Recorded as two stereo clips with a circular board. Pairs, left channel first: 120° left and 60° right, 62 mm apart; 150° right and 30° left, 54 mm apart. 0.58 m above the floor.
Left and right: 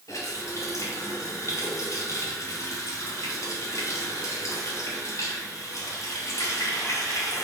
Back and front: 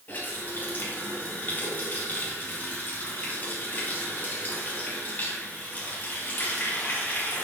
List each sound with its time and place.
0.1 s a running tap: 150° left, 3 m